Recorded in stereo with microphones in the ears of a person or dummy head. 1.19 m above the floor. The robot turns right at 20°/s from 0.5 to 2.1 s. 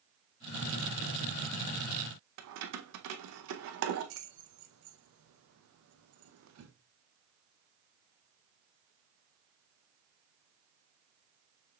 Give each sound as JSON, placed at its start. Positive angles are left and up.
{"t": 2.4, "sound": "keys jangling", "side_deg": -70, "distance_m": 0.6}